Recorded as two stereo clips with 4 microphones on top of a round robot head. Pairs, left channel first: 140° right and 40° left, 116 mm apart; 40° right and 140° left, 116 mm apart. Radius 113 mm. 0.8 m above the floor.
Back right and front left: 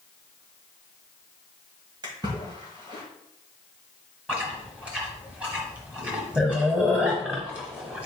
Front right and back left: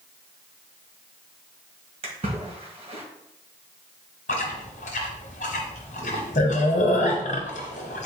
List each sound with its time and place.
2.0 s a splash: 100° left, 1.8 m
4.3 s chewing: 35° right, 0.8 m